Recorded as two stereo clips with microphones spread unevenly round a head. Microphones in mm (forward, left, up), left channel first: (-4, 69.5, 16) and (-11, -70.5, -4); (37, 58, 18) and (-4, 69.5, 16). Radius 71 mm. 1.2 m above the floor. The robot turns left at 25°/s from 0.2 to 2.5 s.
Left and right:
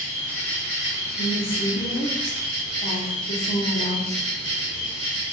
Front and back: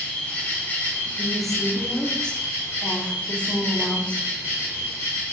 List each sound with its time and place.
0.0 s an insect: 20° left, 1.5 m; by 5.3 s 35° right, 1.5 m
1.2 s a woman speaking: 80° left, 0.8 m; by 4.3 s 50° left, 0.8 m